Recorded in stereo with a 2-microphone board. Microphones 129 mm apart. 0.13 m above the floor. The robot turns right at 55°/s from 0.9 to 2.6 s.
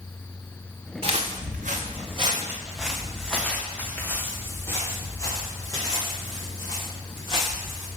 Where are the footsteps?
50° right (ahead or behind), 1.3 m; by 7.9 s 35° left (ahead or behind), 4.5 m.